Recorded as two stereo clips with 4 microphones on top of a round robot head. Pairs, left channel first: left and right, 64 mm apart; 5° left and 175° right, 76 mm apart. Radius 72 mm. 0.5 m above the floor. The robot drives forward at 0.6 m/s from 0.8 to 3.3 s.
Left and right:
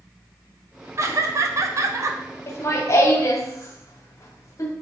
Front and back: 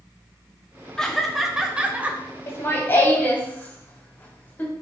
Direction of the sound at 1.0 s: 75° right.